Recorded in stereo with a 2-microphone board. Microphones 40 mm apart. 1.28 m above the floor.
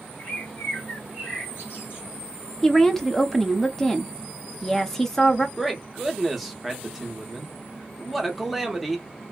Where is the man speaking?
5° right (ahead or behind), 0.8 m.